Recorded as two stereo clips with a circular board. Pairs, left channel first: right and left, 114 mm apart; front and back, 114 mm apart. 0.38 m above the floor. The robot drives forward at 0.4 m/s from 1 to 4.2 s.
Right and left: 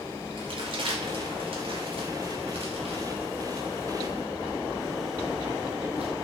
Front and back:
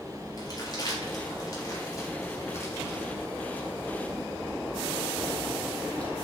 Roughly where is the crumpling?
Ahead left.